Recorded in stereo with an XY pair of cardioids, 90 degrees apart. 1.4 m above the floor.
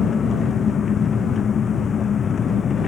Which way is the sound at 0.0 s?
55° left.